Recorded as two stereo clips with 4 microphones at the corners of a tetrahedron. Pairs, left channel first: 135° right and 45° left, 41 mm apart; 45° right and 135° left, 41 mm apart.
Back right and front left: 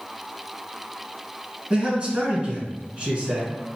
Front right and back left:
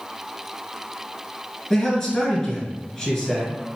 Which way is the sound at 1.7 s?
20° left.